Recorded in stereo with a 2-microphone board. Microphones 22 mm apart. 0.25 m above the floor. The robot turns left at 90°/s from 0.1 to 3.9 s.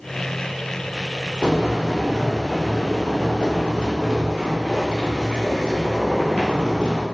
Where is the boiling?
85° right, 1.3 m; by 7.0 s 50° left, 1.3 m.